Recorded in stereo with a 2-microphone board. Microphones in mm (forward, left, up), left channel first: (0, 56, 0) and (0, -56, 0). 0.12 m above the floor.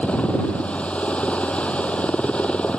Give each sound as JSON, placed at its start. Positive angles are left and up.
{"t": 0.0, "sound": "a helicopter", "side_deg": 10}